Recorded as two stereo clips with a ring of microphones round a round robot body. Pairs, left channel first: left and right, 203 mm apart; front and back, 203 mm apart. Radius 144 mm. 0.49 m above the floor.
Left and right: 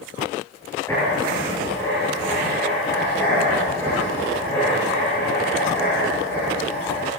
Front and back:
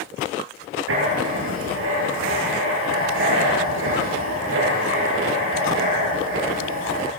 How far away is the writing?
About 7.5 m.